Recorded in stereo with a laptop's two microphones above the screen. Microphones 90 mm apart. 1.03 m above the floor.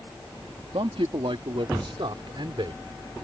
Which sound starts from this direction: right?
A man speaking, at 0.7 s.